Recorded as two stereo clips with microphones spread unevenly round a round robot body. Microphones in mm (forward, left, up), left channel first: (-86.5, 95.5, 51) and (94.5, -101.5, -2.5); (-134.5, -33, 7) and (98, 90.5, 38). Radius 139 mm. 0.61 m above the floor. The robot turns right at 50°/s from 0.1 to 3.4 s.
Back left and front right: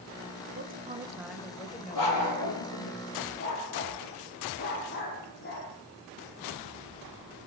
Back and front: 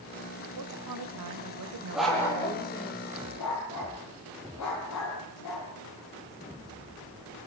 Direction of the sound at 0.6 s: Straight ahead.